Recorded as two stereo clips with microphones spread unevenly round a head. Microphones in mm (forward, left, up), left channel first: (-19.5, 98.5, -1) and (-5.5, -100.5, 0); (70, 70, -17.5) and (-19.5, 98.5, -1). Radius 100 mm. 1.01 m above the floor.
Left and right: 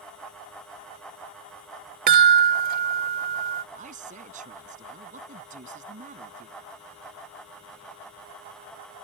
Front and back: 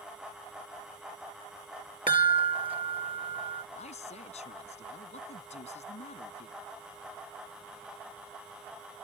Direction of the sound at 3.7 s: 30° right.